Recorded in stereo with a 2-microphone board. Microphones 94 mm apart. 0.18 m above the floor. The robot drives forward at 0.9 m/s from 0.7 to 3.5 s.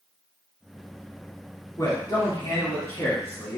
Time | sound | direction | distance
1.8 | a man speaking | 35° left (ahead or behind) | 1.7 m